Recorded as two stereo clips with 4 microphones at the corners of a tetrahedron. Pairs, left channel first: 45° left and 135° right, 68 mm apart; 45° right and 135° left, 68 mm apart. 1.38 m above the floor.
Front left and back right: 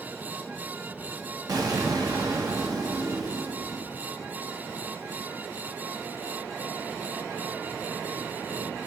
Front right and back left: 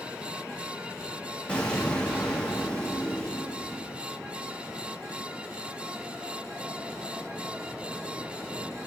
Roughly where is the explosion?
Behind right.